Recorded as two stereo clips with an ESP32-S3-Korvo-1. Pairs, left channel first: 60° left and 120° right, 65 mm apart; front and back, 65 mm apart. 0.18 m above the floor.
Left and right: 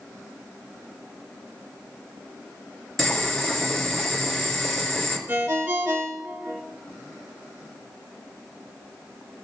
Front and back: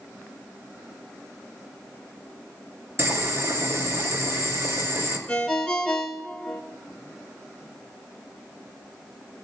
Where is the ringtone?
75° right, 0.8 m.